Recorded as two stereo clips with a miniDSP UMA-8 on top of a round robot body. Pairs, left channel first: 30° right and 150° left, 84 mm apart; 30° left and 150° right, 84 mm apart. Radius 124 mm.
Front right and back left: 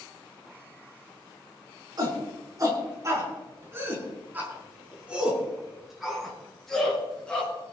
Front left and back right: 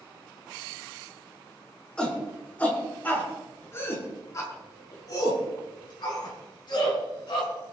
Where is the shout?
110° left, 6.5 m; by 7.5 s 50° left, 7 m.